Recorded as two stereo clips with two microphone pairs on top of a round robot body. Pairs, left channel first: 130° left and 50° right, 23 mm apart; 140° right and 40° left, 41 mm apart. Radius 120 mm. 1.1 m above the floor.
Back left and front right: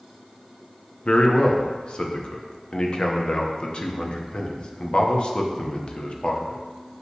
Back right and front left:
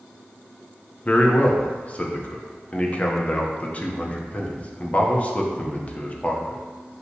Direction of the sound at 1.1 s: 160° left.